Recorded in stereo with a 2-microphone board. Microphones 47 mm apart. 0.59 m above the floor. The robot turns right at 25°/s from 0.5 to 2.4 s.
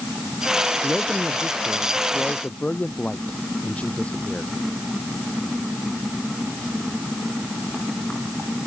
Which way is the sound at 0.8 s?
10° right.